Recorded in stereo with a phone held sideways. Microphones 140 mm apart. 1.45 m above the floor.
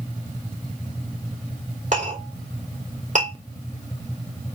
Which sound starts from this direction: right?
A clink, at 1.9 s.